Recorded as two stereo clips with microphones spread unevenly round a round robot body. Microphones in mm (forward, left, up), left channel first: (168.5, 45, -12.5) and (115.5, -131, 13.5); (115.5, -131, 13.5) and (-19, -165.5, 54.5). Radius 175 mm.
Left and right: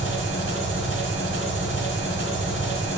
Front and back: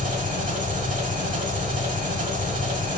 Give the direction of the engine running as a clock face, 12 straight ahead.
5 o'clock.